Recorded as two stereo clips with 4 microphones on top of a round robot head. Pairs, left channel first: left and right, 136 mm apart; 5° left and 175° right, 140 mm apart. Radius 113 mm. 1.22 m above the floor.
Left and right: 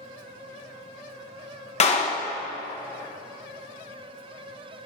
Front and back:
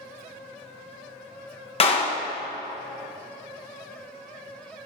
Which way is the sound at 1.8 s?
50° left.